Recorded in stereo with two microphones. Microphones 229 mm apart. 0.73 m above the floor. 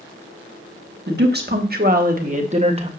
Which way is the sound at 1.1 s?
45° right (ahead or behind).